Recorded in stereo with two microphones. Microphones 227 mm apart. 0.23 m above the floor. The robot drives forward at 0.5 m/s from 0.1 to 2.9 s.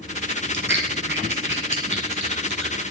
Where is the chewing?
50° right (ahead or behind), 2 m; by 2.8 s 55° right (ahead or behind), 2 m.